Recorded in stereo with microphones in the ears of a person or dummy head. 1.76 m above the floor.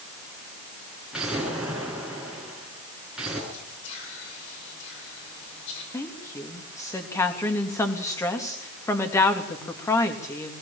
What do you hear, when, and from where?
1.1 s an explosion: centre (ahead or behind), 7 m
3.5 s whispering: 70° left (ahead or behind), 8 m
5.9 s a woman speaking: 15° left (ahead or behind), 3 m